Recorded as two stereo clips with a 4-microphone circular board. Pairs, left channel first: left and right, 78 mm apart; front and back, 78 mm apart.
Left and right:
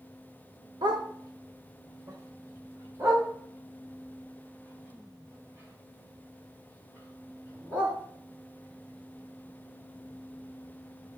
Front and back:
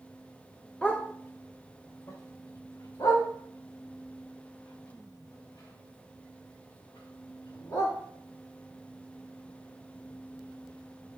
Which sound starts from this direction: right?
A dog barking, at 0.8 s.